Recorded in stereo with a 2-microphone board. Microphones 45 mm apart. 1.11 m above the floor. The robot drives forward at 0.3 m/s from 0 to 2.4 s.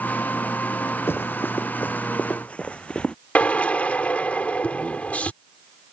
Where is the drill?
35° left (ahead or behind).